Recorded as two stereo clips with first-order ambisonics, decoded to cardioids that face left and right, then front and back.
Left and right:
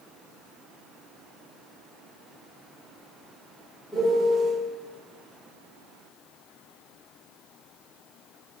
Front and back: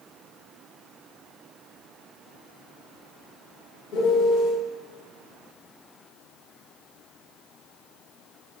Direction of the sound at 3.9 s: 10° left.